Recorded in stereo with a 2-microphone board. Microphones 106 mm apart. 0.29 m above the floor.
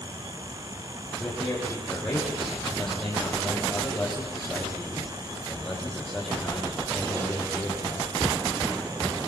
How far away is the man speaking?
About 8.5 m.